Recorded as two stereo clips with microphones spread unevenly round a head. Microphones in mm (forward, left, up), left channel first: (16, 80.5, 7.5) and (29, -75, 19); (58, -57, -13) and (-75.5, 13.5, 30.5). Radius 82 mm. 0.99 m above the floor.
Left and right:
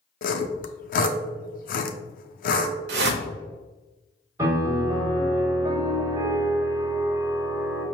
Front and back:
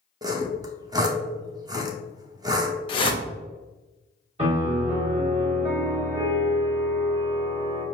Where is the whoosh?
80° right, 0.9 m.